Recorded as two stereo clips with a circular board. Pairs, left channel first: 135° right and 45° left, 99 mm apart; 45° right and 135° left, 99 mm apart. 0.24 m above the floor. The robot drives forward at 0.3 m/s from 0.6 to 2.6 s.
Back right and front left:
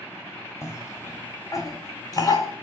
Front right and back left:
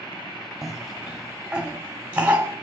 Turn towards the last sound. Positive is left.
turn(degrees=-160)